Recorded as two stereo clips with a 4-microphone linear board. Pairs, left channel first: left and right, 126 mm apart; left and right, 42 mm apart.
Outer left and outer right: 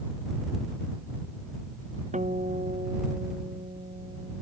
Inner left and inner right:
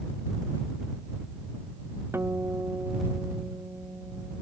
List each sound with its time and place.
2.1 s a guitar: 75° right (ahead or behind)